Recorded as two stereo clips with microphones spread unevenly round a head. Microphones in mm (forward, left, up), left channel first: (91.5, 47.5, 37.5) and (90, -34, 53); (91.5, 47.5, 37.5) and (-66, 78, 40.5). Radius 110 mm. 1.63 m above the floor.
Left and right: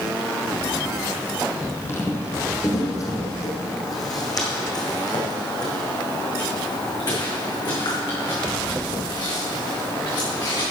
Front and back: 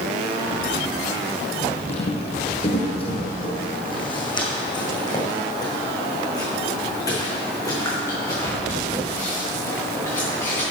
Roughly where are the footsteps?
Ahead left.